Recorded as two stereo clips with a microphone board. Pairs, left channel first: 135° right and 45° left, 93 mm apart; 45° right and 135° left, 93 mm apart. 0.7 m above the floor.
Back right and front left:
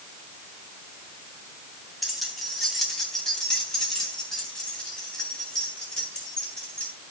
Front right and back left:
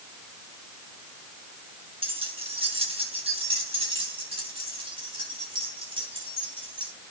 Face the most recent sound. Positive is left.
turn(degrees=145)